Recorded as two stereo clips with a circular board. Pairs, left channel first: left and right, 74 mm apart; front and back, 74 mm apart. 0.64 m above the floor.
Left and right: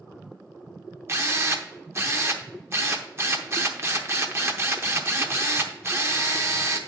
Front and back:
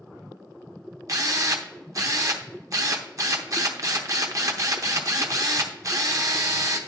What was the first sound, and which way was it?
A drill, 140° right.